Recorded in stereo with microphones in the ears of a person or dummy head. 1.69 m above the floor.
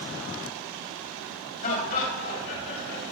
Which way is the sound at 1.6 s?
45° left (ahead or behind).